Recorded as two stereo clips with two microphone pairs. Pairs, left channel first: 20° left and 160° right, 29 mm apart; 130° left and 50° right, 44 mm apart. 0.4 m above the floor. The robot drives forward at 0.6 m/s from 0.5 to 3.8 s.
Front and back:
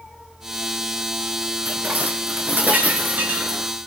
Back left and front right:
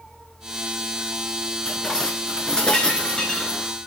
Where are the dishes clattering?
150° right, 3.5 m; by 3.7 s 160° right, 4.5 m.